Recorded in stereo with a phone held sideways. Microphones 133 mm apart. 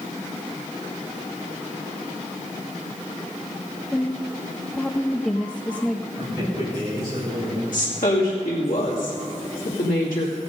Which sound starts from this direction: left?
A woman speaking, at 7.7 s.